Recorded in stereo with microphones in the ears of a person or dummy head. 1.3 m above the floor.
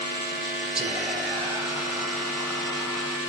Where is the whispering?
10° right (ahead or behind), 1.3 m.